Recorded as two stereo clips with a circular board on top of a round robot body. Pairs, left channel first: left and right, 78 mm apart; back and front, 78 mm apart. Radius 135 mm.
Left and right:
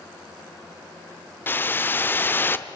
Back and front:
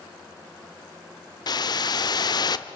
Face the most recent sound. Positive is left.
turn(degrees=155)